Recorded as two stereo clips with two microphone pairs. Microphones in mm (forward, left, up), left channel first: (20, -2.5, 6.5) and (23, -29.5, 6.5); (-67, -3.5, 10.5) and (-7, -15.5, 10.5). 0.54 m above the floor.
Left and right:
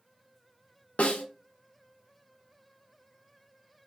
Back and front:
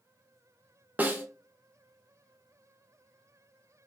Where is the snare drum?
55° left, 0.5 m.